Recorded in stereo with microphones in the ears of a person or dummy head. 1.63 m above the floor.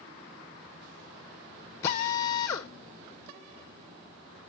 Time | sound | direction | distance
1.8 | a drill | 15° left (ahead or behind) | 0.7 m